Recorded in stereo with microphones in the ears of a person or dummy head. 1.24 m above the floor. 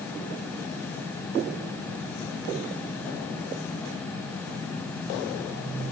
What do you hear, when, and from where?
Only background noise.